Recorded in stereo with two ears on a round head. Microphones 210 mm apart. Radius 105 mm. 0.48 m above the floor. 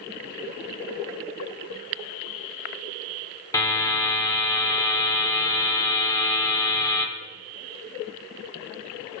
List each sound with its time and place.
3.5 s a buzzer: 15° left (ahead or behind), 1.2 m